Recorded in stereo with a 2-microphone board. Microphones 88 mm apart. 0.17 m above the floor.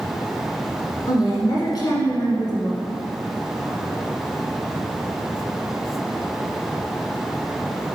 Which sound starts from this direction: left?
A woman speaking, at 1.1 s.